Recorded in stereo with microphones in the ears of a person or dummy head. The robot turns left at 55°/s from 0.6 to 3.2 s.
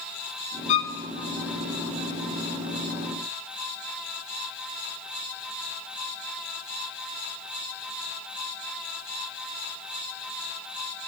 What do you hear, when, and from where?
0.7 s a violin: 40° left (ahead or behind), 0.5 m; by 0.9 s 25° left (ahead or behind), 0.5 m